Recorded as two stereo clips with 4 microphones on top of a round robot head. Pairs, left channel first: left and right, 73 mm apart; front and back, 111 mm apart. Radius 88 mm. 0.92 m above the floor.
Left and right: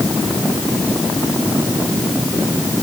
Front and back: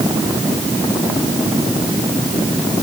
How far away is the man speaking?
I don't hear a man speaking.